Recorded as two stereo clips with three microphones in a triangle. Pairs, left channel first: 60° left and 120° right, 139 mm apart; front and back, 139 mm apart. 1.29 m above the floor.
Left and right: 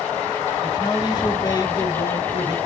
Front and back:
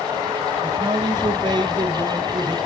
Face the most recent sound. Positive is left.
turn(degrees=120)